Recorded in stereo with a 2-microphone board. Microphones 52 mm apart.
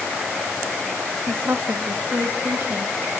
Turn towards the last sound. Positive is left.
turn(degrees=-75)  # may be behind; listen again after turning